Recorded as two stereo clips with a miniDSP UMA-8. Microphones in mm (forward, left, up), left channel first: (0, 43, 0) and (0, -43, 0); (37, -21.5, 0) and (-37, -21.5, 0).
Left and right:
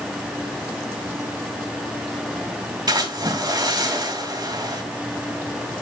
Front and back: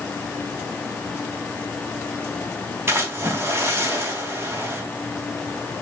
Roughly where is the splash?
Behind right.